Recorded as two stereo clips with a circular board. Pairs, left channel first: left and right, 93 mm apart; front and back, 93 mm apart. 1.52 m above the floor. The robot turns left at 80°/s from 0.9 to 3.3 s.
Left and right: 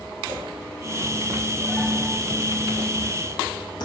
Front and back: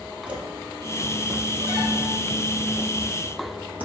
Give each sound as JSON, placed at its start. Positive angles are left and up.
{"t": 0.3, "sound": "footsteps", "azimuth_deg": -110, "distance_m": 2.0}